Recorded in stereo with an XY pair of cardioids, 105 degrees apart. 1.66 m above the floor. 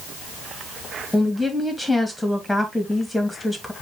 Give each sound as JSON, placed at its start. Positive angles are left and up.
{"t": 1.1, "sound": "a woman speaking", "azimuth_deg": 5, "distance_m": 3.0}